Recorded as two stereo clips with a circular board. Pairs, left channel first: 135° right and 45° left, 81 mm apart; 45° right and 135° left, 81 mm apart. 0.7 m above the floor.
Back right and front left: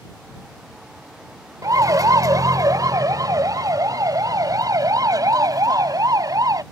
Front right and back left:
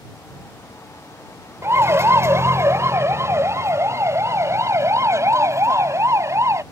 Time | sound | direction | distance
1.6 | a siren | 80° left | ?